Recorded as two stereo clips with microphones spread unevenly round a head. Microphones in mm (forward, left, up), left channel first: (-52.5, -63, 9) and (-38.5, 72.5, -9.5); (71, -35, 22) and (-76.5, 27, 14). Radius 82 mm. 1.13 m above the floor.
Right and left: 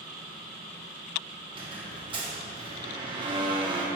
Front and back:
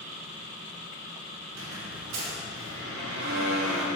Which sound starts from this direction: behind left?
A squeak, at 1.5 s.